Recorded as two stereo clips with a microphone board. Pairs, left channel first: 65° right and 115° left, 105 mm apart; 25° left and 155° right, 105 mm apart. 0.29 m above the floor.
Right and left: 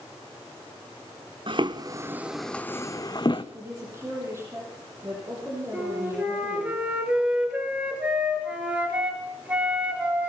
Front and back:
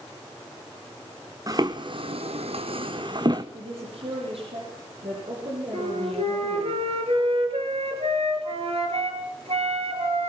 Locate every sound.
1.5 s footsteps: 150° left, 1.3 m; by 3.4 s 110° right, 1.6 m
3.5 s a woman speaking: straight behind, 9 m
5.7 s a flute: 170° right, 5 m